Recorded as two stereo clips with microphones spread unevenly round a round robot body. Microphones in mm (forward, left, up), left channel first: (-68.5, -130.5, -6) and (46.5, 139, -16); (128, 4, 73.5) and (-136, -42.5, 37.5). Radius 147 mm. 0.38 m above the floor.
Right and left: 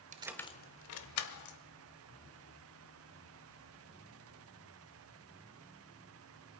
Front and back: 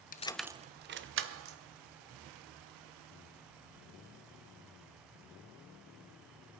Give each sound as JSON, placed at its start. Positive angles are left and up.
{"t": 0.1, "sound": "keys jangling", "azimuth_deg": 50, "distance_m": 0.5}